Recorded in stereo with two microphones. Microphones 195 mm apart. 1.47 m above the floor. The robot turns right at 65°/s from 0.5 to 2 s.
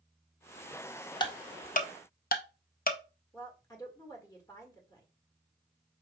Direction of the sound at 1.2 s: 25° left (ahead or behind).